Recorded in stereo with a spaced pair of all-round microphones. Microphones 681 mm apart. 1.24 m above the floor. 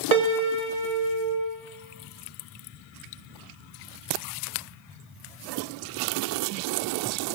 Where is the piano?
60° right (ahead or behind), 1.1 m.